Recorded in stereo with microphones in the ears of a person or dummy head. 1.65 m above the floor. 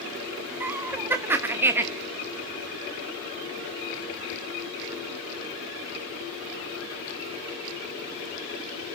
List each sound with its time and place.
0.6 s laughter: 15° right (ahead or behind), 1.0 m